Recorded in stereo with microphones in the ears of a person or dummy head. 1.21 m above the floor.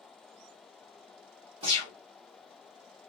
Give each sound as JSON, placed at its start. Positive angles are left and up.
{"t": 1.6, "sound": "a gunshot", "side_deg": -25, "distance_m": 0.9}